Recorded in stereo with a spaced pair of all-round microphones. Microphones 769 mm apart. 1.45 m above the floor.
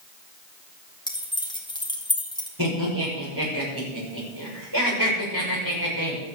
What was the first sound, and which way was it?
Keys jangling, 5° left (ahead or behind).